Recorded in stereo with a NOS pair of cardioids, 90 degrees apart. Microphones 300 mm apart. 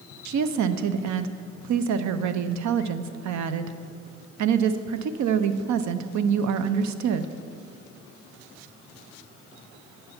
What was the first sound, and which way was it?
A woman speaking, 65° right.